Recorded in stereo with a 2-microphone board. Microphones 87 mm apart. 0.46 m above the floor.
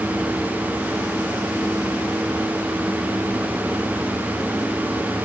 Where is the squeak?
I don't hear a squeak.